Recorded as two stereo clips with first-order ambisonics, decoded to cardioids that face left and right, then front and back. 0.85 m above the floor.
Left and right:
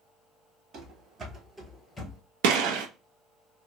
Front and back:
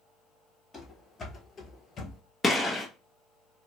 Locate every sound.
0.7 s running footsteps: 75° right, 1.0 m; by 2.2 s 35° left, 0.9 m
2.4 s a gunshot: 85° right, 0.6 m